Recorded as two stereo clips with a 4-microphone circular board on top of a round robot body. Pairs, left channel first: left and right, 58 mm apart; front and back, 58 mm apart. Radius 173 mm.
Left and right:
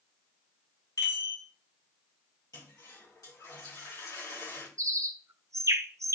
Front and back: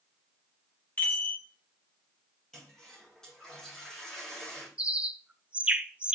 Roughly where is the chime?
Ahead left.